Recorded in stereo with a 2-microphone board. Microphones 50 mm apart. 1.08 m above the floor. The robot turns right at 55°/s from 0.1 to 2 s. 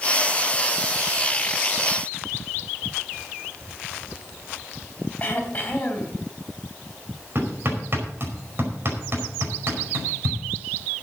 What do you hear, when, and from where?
5.2 s throat clearing: 35° left (ahead or behind), 3.5 m
7.3 s hammering: 50° right (ahead or behind), 5 m